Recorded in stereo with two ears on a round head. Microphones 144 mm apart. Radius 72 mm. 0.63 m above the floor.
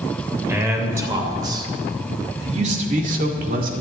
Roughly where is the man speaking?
Centre.